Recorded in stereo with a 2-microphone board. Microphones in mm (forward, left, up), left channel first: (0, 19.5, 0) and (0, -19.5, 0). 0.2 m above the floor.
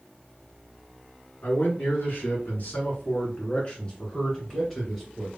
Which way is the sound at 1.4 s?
60° left (ahead or behind).